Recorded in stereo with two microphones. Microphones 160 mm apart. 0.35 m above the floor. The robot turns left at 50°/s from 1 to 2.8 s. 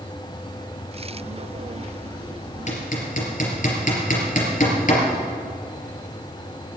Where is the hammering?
50° left (ahead or behind), 3.5 m; by 5.0 s 55° left (ahead or behind), 3.5 m.